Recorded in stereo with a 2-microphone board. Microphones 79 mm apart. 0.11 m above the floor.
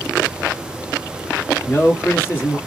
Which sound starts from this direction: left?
A man speaking, at 1.7 s.